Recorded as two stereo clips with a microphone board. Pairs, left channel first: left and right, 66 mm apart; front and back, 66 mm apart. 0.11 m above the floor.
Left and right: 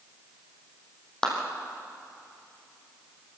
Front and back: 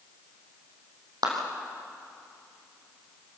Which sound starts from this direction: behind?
A clap, at 1.2 s.